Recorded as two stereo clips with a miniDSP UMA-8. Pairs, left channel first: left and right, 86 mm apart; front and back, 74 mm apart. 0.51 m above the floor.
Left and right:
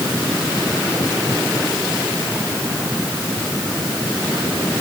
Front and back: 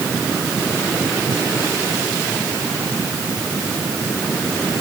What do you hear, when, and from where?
Only background noise.